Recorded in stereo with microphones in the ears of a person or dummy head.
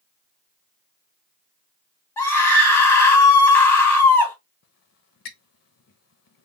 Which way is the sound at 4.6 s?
60° left (ahead or behind).